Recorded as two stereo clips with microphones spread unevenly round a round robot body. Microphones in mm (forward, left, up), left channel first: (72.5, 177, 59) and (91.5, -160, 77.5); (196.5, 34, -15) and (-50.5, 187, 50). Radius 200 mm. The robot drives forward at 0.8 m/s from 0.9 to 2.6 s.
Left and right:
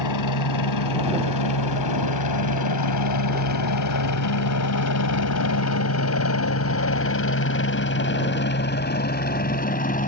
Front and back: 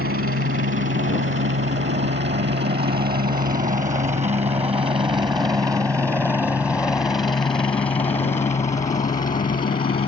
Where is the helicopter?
105° left; by 10.1 s 30° left.